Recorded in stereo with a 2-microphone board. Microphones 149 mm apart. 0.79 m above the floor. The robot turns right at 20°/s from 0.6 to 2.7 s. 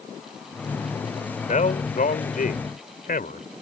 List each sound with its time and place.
1.5 s a man speaking: 60° left (ahead or behind); by 3.5 s 75° left (ahead or behind)